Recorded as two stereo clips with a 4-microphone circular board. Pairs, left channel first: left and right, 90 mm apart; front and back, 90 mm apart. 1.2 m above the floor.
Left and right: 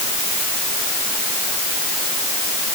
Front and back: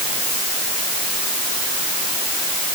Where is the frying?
No frying in this recording.